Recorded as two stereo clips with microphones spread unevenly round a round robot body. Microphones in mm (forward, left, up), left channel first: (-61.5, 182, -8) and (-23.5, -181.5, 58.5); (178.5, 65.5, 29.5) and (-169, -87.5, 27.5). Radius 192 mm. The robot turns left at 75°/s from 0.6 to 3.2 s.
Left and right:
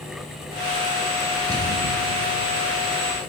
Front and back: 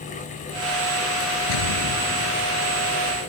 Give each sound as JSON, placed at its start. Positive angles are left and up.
{"t": 1.5, "sound": "an explosion", "azimuth_deg": 0}